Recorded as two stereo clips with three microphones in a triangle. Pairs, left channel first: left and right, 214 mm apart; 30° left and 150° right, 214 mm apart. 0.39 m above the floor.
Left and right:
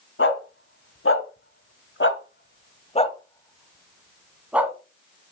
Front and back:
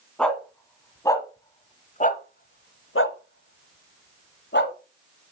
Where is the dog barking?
115° left, 1.5 m; by 4.8 s 10° right, 1.4 m.